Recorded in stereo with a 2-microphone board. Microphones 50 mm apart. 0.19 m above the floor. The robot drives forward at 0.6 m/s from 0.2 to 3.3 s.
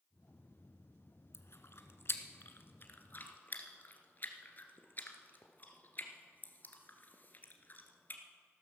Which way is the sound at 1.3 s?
60° left (ahead or behind).